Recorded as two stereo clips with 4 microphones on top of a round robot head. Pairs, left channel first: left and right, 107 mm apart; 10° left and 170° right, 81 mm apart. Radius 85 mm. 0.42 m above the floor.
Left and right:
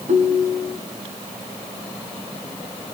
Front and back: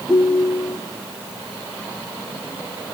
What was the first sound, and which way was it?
A ringtone, 85° right.